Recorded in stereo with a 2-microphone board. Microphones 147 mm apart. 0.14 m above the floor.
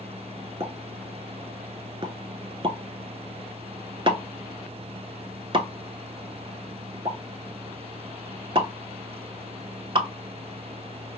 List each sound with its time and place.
0.6 s a pop: 35° right (ahead or behind), 0.5 m